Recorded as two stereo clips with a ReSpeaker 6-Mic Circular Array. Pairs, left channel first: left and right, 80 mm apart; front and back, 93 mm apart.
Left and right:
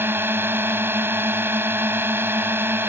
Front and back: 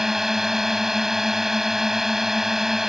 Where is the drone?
100° right.